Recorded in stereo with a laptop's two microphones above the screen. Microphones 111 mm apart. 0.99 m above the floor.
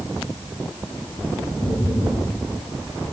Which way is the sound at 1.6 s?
35° left (ahead or behind).